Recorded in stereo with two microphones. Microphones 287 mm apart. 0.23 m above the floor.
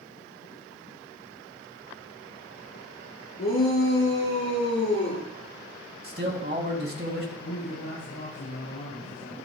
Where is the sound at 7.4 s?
75° left (ahead or behind), 6 m.